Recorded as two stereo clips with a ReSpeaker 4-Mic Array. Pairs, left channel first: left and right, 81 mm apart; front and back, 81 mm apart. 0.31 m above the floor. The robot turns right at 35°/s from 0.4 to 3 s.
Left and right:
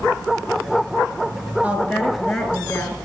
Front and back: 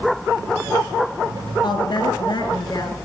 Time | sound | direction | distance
1.6 | a woman speaking | 20° right | 3.5 m